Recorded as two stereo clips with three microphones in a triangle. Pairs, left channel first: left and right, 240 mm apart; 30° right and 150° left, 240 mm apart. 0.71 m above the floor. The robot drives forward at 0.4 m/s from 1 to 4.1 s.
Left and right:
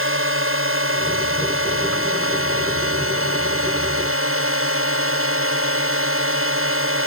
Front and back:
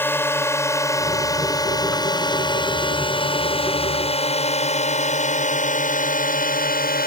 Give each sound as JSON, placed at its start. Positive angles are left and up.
{"t": 0.0, "sound": "a drone", "azimuth_deg": -110}